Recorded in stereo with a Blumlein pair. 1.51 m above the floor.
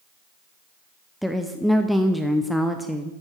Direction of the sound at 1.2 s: Straight ahead.